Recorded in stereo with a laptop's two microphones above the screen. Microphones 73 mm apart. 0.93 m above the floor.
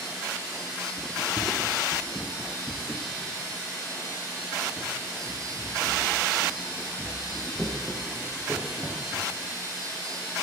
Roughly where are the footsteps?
Centre.